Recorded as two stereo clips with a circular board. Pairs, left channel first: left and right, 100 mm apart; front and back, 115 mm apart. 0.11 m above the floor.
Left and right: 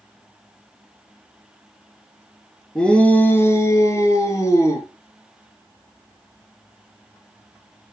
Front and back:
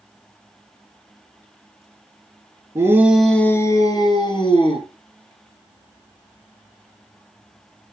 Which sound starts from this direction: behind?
A shout, at 2.8 s.